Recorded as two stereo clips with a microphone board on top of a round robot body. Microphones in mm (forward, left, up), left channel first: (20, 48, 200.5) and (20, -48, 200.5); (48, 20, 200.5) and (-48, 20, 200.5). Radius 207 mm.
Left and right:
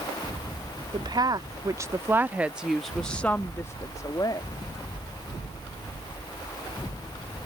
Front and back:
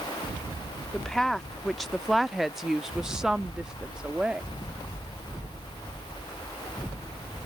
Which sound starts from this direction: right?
A woman speaking, at 0.9 s.